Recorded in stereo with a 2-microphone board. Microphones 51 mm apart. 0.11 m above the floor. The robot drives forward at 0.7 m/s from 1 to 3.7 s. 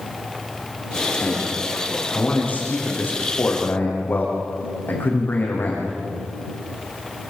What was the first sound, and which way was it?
A man speaking, 30° left (ahead or behind).